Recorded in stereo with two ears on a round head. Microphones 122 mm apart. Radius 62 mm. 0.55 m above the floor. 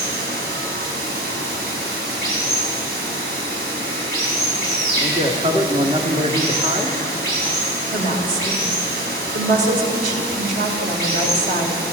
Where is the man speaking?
35° right (ahead or behind), 1.4 m.